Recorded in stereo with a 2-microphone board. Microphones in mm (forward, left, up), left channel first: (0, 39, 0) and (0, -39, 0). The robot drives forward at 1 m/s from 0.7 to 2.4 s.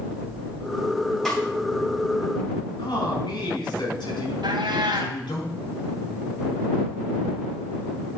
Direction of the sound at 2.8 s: 80° left.